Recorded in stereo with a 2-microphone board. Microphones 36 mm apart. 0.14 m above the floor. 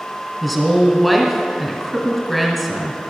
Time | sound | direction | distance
0.4 | a woman speaking | centre (ahead or behind) | 1.7 m